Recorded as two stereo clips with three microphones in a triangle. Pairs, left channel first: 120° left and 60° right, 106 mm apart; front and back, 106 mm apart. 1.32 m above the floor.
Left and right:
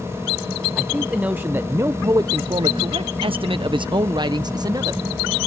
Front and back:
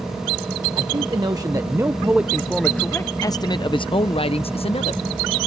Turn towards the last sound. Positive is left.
turn(degrees=-10)